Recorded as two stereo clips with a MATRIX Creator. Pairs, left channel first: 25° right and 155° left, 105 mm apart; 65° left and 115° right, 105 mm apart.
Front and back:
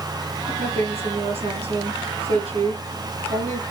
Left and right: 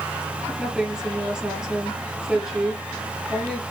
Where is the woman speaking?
165° left, 4.5 m.